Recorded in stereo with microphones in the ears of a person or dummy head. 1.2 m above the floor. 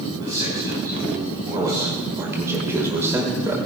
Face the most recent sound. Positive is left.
turn(degrees=-20)  # may be behind; listen again after turning